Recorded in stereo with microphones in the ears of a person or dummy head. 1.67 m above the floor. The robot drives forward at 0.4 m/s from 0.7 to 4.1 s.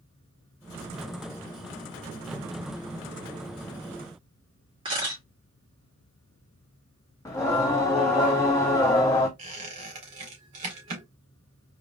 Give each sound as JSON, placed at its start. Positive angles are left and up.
{"t": 4.8, "sound": "a camera shutter", "side_deg": -25, "distance_m": 2.5}
{"t": 7.2, "sound": "singing", "side_deg": 15, "distance_m": 0.7}
{"t": 9.4, "sound": "a squeak", "side_deg": -35, "distance_m": 1.8}